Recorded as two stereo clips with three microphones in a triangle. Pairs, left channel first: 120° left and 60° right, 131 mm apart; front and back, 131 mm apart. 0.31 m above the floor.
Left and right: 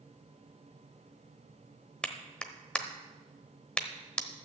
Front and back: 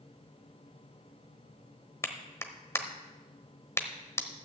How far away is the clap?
About 1.0 m.